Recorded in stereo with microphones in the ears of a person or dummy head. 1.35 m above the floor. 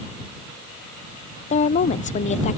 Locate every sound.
1.5 s a woman speaking: 40° left (ahead or behind)